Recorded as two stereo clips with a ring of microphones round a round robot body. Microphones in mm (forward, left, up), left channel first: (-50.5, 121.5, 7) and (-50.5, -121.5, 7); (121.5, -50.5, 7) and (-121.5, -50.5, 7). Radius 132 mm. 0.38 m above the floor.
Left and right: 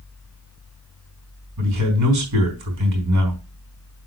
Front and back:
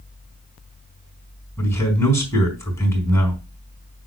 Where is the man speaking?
80° right, 4.5 m.